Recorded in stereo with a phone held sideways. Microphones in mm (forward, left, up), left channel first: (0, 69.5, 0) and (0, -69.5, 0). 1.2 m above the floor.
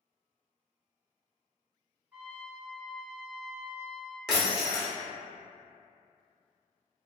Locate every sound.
2.1 s a trumpet: 10° right (ahead or behind), 1.0 m
4.3 s breaking glass: 5° right (ahead or behind), 0.8 m